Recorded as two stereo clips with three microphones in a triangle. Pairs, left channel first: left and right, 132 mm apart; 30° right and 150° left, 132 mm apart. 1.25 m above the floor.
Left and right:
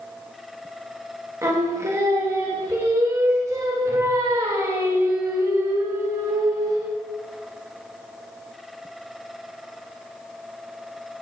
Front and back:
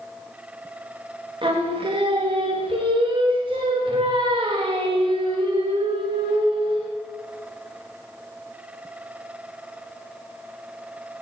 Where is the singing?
155° right, 1.1 m.